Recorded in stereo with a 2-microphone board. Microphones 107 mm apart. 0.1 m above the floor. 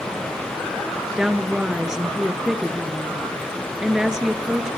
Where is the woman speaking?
5° right (ahead or behind), 1.5 m.